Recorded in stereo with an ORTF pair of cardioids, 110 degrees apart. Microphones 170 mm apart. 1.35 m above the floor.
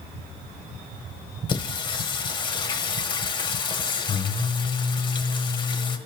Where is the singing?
30° left, 1.2 m.